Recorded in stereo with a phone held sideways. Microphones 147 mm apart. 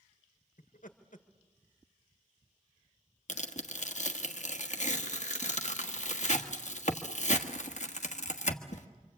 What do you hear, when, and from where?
0.6 s laughter: 70° left (ahead or behind), 1.7 m
3.3 s tearing paper: 60° left (ahead or behind), 1.5 m